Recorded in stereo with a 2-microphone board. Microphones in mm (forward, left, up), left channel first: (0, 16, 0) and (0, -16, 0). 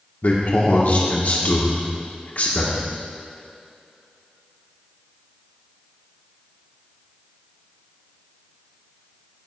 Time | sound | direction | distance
0.2 | a man speaking | 65° left (ahead or behind) | 1.6 m